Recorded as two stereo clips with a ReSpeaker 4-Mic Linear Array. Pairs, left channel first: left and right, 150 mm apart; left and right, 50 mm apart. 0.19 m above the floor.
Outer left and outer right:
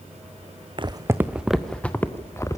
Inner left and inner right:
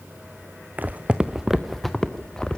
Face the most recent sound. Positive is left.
turn(degrees=20)  # may be behind; listen again after turning